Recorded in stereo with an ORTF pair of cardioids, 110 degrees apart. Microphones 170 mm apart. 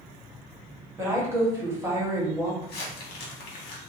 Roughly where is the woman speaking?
Ahead.